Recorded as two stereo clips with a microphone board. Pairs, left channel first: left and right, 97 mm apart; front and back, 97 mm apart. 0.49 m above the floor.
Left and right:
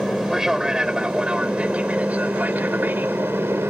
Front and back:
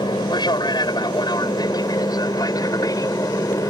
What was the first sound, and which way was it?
An aircraft, 5° right.